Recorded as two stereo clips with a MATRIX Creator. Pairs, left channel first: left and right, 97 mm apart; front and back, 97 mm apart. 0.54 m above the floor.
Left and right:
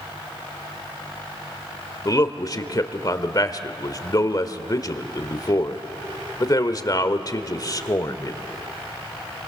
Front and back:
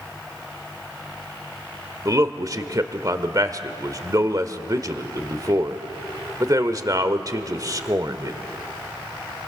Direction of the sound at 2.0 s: 135° left.